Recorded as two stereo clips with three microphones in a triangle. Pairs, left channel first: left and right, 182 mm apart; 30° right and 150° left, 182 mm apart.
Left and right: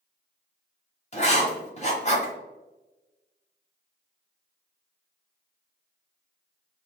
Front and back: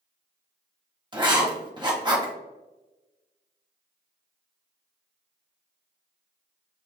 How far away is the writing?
About 1.2 m.